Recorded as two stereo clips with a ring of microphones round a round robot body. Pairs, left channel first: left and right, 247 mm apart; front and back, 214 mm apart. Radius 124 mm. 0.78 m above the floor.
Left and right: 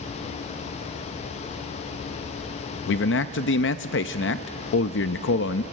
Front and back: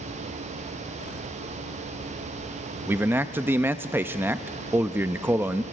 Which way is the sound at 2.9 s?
105° left.